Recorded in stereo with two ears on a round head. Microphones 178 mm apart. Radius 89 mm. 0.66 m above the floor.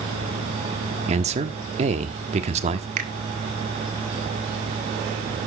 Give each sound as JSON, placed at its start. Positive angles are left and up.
{"t": 1.1, "sound": "a man speaking", "side_deg": -35, "distance_m": 1.3}
{"t": 3.0, "sound": "a finger snap", "side_deg": -40, "distance_m": 1.9}